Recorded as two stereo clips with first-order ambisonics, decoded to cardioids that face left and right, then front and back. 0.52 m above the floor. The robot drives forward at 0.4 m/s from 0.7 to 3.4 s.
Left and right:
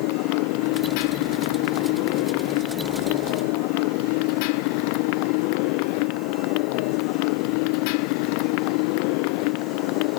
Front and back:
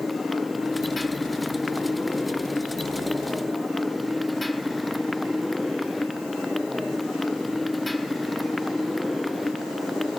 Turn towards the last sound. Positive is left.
turn(degrees=85)